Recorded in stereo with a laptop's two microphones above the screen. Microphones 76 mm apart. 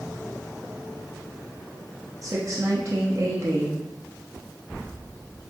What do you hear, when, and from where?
2.2 s a woman speaking: 45° right (ahead or behind), 0.8 m